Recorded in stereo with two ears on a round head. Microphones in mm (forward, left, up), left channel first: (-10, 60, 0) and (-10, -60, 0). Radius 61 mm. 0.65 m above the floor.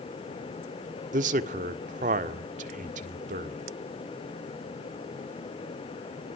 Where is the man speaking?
60° right (ahead or behind), 1.7 m.